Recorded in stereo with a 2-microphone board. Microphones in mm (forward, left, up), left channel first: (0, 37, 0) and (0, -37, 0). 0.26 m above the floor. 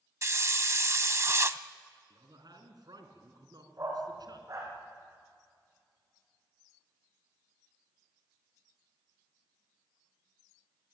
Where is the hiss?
40° right (ahead or behind), 0.7 m.